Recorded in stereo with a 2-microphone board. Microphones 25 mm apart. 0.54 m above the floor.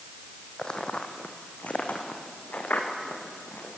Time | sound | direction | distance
0.6 | footsteps | 35° left (ahead or behind) | 1.7 m